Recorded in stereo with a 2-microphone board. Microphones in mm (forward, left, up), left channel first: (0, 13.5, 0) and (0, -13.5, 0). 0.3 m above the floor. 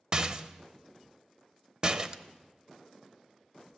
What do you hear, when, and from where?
0.1 s a rattle: 30° right (ahead or behind), 0.6 m